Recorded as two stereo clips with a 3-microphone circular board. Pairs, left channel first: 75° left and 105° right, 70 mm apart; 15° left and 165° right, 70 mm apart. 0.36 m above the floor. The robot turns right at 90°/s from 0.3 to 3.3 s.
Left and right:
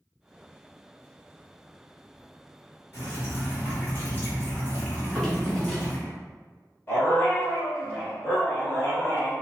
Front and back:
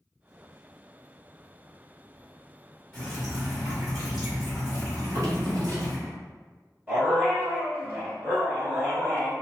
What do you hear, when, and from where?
2.9 s dripping: 80° left, 1.9 m; by 6.0 s 115° left, 1.9 m
5.0 s a drawer: 155° left, 1.1 m
6.9 s a dog barking: 135° left, 1.3 m